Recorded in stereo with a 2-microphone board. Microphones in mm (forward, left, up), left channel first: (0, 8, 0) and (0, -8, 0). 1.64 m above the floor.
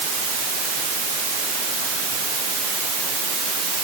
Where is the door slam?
No door slam in this recording.